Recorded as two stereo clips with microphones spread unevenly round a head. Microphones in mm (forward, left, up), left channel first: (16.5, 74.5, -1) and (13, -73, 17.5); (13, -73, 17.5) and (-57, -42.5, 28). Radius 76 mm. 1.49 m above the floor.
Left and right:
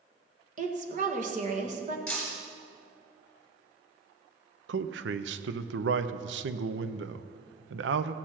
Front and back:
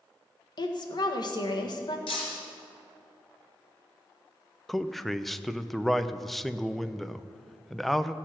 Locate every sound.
0.6 s a woman speaking: 50° right, 1.7 m
2.1 s breaking glass: straight ahead, 3.5 m
4.7 s a man speaking: 110° right, 0.6 m